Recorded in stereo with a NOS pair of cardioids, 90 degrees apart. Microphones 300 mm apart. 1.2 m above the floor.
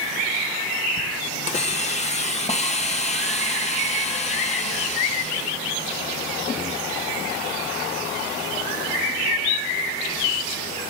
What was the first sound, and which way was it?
A hiss, 25° left.